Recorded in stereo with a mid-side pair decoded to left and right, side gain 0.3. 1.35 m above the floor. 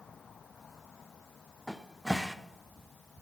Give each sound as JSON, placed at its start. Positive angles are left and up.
{"t": 1.7, "sound": "a cupboard door", "azimuth_deg": -10, "distance_m": 0.7}